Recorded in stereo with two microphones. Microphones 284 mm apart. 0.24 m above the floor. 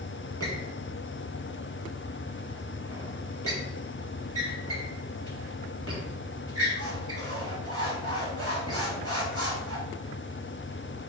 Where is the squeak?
55° right (ahead or behind), 1.5 m.